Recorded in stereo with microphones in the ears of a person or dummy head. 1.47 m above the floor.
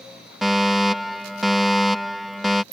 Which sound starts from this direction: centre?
A fire alarm, at 0.4 s.